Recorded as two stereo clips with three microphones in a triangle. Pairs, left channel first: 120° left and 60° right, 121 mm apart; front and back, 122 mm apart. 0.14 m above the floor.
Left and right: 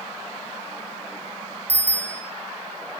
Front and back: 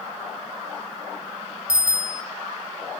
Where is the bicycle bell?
135° right, 5 m.